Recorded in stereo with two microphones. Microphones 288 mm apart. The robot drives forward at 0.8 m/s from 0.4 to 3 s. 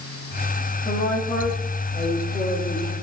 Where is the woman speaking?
10° right (ahead or behind), 6.5 m; by 2.9 s 5° right (ahead or behind), 8 m.